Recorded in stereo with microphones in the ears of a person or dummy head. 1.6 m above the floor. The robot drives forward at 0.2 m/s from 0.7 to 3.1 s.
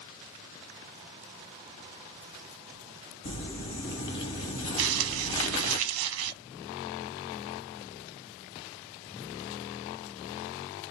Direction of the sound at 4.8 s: 80° right.